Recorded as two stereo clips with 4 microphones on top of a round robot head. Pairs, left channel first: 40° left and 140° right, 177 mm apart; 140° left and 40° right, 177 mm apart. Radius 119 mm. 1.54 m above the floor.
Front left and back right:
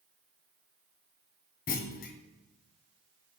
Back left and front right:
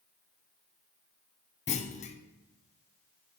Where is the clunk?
85° left, 0.6 m.